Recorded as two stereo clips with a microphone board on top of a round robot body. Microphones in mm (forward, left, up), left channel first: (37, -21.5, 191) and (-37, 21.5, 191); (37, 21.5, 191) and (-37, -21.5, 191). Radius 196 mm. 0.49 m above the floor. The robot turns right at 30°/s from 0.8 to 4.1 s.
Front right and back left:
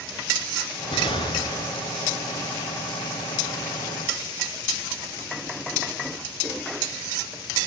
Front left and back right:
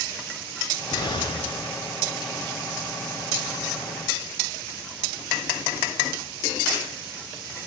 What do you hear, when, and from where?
0.9 s an explosion: 10° right, 1.9 m; by 1.8 s 20° left, 1.9 m